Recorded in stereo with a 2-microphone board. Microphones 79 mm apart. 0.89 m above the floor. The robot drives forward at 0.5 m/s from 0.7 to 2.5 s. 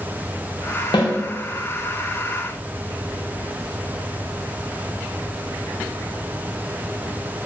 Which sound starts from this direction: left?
A snare drum, at 0.9 s.